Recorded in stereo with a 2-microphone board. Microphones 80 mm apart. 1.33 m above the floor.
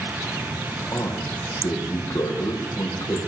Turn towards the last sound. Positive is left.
turn(degrees=55)  # may be behind; listen again after turning